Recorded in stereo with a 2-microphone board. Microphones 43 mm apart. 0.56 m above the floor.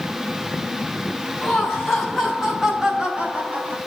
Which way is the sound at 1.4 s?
10° left (ahead or behind).